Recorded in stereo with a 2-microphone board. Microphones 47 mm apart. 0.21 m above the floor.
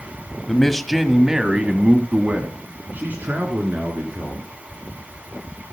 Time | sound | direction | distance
0.5 | a man speaking | 15° left (ahead or behind) | 1.1 m